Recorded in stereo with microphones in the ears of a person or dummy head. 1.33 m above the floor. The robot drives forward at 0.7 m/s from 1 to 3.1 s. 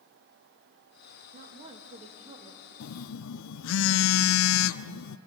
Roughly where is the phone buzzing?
Left.